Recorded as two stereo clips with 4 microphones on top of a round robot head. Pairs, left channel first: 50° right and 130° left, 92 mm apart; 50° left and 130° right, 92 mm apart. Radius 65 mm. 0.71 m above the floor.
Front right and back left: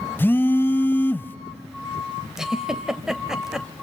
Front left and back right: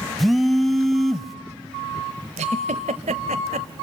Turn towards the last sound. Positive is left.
turn(degrees=-145)